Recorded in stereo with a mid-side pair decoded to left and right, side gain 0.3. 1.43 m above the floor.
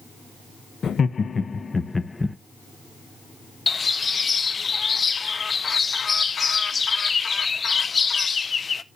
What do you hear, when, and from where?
0.8 s laughter: 65° left, 1.1 m; by 2.4 s 20° left, 1.2 m
3.7 s a bird: 50° left, 0.6 m